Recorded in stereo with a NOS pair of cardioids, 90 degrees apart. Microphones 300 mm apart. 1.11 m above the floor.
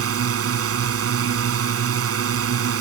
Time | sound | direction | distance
0.0 | a drone | 50° right | ?